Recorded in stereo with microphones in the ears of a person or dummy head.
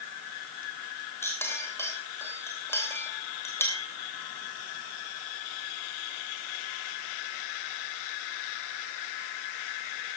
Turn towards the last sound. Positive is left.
turn(degrees=10)  # may be behind; listen again after turning